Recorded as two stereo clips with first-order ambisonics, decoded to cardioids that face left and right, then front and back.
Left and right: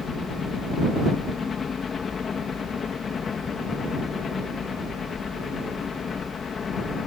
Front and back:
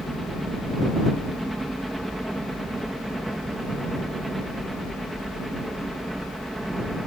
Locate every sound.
0.0 s a helicopter: 100° left